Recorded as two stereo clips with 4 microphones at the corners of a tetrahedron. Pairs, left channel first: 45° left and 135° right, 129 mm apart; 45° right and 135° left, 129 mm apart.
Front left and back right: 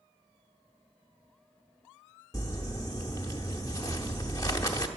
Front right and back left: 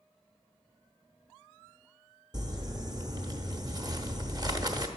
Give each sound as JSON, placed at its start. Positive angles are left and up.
{"t": 2.3, "sound": "crumpling", "azimuth_deg": 95, "distance_m": 0.9}